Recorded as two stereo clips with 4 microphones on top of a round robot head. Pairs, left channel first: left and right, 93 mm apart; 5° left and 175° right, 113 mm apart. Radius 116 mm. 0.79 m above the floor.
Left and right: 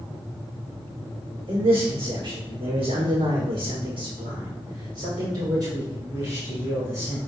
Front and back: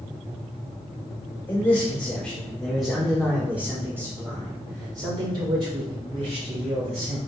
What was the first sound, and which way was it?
A man speaking, 60° right.